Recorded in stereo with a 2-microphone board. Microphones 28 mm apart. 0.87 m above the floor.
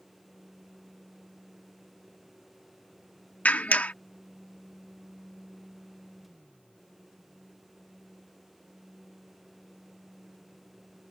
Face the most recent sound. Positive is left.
turn(degrees=70)  # may be behind; listen again after turning